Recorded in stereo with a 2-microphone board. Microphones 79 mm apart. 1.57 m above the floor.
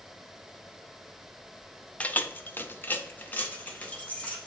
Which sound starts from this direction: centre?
Keys jangling, at 2.0 s.